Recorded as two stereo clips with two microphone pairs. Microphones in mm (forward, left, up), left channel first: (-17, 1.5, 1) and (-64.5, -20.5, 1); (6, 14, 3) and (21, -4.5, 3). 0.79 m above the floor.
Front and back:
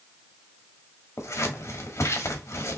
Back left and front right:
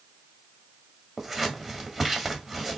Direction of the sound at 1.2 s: 20° left.